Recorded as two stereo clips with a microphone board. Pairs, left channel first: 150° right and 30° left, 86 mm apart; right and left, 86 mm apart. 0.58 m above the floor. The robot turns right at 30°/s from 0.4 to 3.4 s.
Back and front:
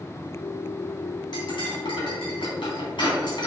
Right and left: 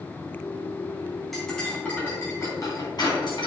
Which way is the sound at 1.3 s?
Straight behind.